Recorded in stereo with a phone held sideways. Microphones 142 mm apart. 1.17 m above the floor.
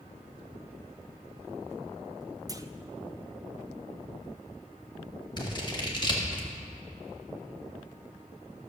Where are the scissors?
30° left (ahead or behind), 1.7 m.